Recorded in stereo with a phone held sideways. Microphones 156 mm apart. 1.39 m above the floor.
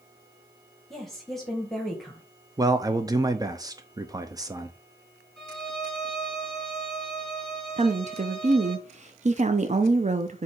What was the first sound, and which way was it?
A woman speaking, 5° left (ahead or behind).